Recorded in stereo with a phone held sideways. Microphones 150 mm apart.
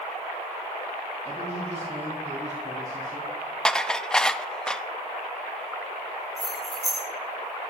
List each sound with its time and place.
1.2 s a man speaking: 40° right (ahead or behind), 5 m; by 3.5 s 60° right (ahead or behind), 6 m
3.6 s dishes clattering: 5° left (ahead or behind), 0.5 m
6.4 s keys jangling: centre (ahead or behind), 7.5 m